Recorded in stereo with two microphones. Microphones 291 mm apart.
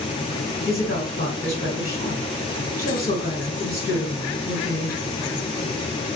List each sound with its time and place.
0.7 s a woman speaking: 35° left (ahead or behind), 2.5 m